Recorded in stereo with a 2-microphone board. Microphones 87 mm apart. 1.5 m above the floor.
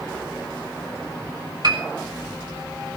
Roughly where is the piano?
Right.